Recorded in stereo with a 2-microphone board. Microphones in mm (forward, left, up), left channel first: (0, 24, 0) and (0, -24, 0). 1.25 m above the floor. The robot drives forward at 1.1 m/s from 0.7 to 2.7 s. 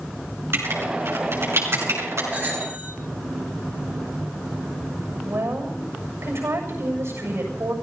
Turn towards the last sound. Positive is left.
turn(degrees=-70)  # may be behind; listen again after turning